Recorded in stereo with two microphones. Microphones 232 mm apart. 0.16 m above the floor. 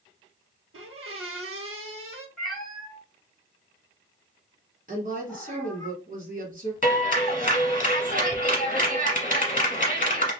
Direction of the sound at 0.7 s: 75° right (ahead or behind).